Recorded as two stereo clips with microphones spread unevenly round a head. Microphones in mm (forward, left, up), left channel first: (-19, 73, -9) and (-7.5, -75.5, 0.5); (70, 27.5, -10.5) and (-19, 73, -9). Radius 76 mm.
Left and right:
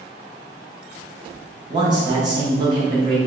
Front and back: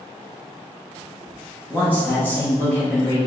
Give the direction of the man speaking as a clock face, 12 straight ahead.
2 o'clock.